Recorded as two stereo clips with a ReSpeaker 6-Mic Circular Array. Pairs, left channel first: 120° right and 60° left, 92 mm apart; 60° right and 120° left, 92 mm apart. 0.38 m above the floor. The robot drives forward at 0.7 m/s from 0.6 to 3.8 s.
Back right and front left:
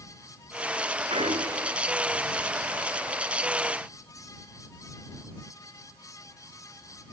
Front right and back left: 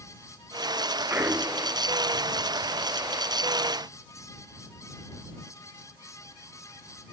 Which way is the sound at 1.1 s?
55° left.